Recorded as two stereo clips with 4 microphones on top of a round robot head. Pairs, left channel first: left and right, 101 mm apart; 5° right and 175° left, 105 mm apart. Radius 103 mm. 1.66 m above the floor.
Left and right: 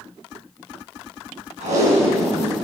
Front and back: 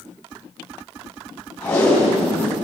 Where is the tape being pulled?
85° right, 7 m.